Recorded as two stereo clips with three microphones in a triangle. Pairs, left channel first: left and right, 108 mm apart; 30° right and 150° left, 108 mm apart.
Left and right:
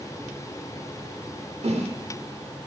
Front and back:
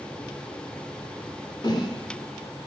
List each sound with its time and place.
1.6 s a whoosh: 80° right, 1.4 m